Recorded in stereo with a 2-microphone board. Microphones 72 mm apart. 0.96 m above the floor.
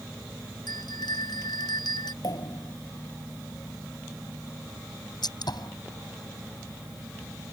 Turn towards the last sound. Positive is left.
turn(degrees=70)  # may be behind; listen again after turning